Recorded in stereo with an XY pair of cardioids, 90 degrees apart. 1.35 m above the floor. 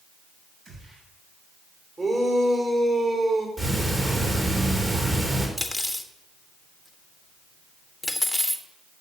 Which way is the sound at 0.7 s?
60° right.